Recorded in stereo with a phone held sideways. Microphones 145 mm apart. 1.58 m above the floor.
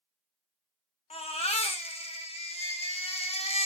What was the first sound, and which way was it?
A baby crying, 50° left (ahead or behind).